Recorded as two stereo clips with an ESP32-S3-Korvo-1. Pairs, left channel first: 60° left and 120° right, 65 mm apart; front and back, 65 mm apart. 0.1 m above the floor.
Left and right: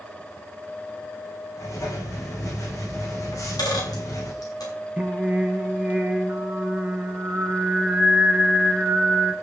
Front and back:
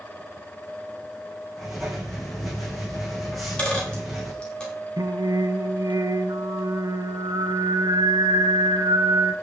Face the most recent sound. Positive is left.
turn(degrees=170)